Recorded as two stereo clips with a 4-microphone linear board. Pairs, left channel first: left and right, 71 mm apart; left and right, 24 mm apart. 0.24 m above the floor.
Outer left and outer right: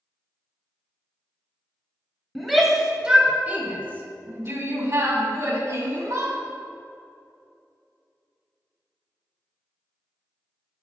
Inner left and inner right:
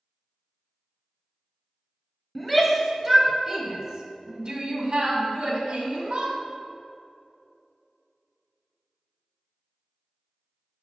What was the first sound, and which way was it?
A shout, 5° left (ahead or behind).